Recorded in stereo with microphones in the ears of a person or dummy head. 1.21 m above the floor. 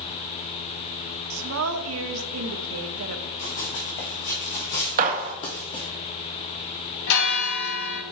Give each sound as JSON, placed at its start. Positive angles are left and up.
{"t": 1.3, "sound": "a woman speaking", "side_deg": -80, "distance_m": 0.9}
{"t": 3.4, "sound": "running footsteps", "side_deg": 55, "distance_m": 3.5}
{"t": 5.0, "sound": "a gunshot", "side_deg": -45, "distance_m": 0.9}
{"t": 7.1, "sound": "a bell", "side_deg": 60, "distance_m": 1.4}